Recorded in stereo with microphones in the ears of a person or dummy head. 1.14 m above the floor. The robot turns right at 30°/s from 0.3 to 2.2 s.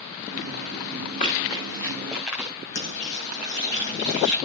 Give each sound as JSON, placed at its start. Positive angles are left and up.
{"t": 1.2, "sound": "running footsteps", "side_deg": 40, "distance_m": 5.5}
{"t": 2.8, "sound": "frying", "side_deg": 55, "distance_m": 7.0}